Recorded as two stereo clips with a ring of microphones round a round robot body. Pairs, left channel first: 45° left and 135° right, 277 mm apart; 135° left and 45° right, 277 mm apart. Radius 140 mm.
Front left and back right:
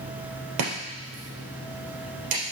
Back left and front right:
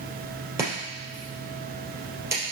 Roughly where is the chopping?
Behind right.